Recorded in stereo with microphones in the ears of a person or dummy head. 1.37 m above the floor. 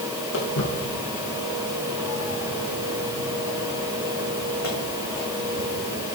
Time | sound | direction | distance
0.3 | footsteps | 75° left (ahead or behind) | 6 m